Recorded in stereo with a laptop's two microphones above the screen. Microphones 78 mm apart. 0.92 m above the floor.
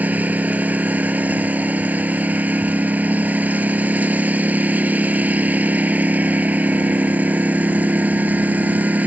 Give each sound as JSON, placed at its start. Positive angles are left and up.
{"t": 0.0, "sound": "a lawn mower", "side_deg": -20}